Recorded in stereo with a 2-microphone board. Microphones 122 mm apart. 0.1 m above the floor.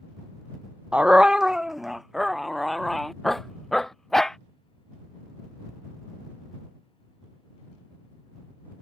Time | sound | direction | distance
0.9 | a dog barking | 10° right (ahead or behind) | ?